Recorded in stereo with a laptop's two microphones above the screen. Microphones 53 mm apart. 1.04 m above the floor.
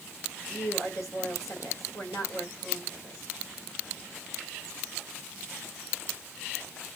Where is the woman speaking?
80° left, 4.5 m.